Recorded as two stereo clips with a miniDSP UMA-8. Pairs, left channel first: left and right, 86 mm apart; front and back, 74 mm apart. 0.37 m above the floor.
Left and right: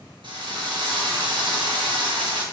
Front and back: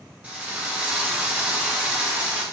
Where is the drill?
110° right, 2.5 m.